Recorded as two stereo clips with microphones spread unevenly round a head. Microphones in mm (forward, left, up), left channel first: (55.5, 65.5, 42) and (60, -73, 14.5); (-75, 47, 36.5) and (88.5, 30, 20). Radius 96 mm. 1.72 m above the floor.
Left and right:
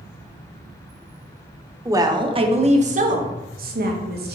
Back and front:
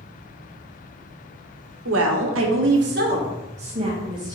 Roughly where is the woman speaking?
Ahead.